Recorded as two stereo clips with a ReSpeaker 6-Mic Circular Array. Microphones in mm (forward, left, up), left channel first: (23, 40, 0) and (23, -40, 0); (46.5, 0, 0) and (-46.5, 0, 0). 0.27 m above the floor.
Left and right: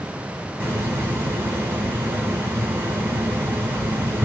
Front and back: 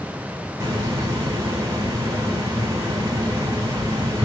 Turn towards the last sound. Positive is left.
turn(degrees=-140)